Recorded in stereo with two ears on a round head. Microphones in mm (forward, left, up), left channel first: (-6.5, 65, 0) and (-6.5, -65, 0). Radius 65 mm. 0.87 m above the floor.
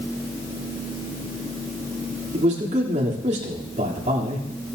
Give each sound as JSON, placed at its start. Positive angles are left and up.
{"t": 2.3, "sound": "a man speaking", "side_deg": -45, "distance_m": 2.5}